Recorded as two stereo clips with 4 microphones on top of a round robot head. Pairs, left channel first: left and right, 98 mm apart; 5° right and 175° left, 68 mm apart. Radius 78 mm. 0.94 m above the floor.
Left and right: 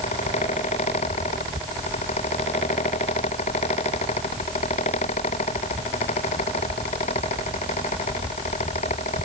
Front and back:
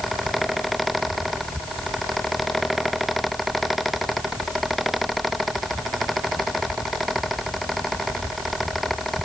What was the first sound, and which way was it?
Only background noise.